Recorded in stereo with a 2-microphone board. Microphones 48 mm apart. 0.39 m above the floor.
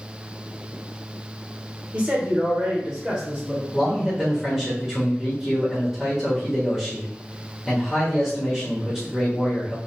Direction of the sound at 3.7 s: 5° right (ahead or behind).